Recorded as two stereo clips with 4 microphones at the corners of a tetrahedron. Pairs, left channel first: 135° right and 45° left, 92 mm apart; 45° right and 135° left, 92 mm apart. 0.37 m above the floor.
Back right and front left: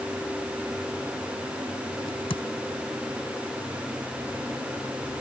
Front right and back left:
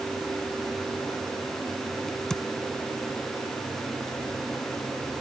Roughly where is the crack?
Behind right.